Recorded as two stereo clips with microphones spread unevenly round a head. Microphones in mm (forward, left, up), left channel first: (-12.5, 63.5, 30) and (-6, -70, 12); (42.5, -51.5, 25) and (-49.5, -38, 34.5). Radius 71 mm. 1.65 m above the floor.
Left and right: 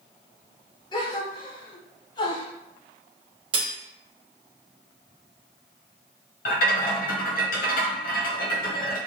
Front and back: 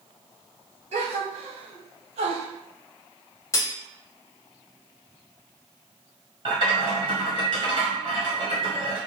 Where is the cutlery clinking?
45° right, 0.9 m.